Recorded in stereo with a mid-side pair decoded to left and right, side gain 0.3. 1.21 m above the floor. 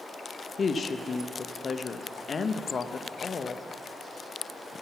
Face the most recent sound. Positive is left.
turn(degrees=55)